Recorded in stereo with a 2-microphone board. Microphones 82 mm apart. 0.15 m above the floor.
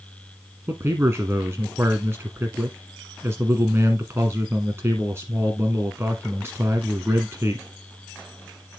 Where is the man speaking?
30° right (ahead or behind), 1.3 m.